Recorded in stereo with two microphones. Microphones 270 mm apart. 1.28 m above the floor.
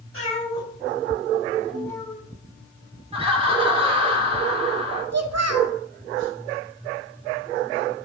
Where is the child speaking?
65° right (ahead or behind), 0.9 m.